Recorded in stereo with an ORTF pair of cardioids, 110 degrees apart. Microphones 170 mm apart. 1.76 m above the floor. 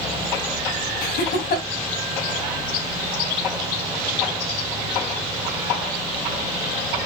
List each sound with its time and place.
1.0 s laughter: 65° left, 3.5 m